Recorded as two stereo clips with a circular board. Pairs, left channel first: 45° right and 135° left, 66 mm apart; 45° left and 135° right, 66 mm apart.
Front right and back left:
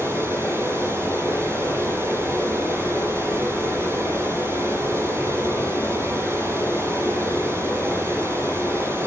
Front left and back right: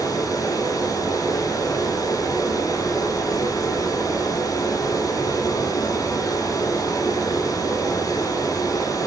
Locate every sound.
0.0 s running water: 80° left, 9.5 m